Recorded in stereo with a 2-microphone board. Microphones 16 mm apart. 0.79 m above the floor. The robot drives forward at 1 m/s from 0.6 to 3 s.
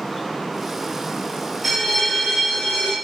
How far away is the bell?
About 1.2 m.